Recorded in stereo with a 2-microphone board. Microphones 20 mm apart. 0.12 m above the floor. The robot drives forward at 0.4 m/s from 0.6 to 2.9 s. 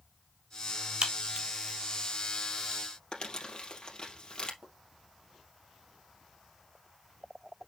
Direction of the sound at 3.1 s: 40° left (ahead or behind).